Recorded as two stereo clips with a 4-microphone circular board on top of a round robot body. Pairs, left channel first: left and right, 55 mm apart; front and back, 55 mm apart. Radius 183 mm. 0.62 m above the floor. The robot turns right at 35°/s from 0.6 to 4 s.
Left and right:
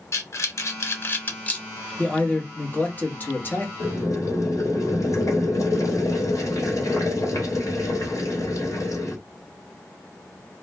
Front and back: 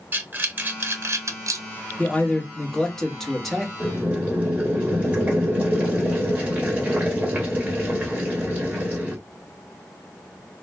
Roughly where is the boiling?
Left.